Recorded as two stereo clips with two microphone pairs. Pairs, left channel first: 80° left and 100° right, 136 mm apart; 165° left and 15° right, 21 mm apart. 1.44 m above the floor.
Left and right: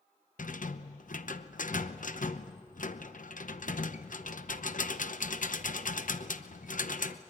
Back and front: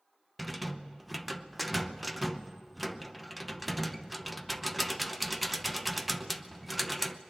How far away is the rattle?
About 0.8 m.